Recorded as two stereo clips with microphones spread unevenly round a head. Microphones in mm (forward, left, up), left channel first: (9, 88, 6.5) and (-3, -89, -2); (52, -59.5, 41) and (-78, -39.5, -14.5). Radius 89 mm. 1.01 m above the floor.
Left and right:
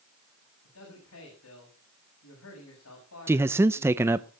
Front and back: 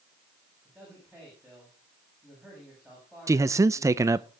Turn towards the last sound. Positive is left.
turn(degrees=-165)